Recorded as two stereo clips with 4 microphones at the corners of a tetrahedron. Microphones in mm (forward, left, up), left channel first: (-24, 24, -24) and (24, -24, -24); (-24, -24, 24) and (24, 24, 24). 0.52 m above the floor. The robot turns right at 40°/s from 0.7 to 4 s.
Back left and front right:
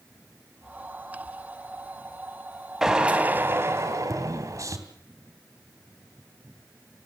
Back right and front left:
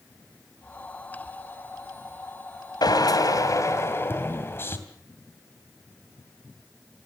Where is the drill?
130° right, 2.5 m; by 4.8 s 80° right, 2.5 m.